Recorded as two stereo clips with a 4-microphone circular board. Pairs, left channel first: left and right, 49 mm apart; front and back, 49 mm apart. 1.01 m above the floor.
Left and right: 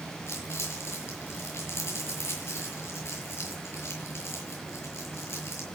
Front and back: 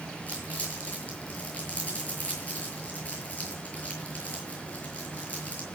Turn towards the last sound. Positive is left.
turn(degrees=60)